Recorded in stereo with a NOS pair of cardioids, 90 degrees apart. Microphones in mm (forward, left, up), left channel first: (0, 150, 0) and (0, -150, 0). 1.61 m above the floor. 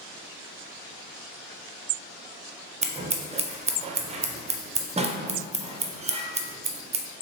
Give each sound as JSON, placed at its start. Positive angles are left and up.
{"t": 2.8, "sound": "scissors", "azimuth_deg": -20, "distance_m": 0.5}